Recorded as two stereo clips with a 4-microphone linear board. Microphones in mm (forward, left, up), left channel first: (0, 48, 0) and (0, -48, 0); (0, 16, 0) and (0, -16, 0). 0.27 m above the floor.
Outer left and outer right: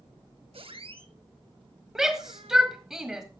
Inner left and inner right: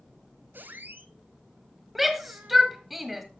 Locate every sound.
0.5 s a squeak: 75° right (ahead or behind), 0.7 m
1.9 s a shout: 5° right (ahead or behind), 1.4 m